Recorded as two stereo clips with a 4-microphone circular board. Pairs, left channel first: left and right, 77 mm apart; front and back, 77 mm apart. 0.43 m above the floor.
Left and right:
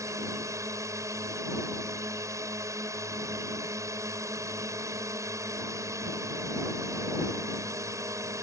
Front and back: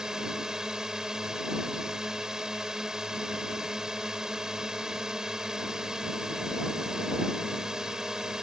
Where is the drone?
100° right.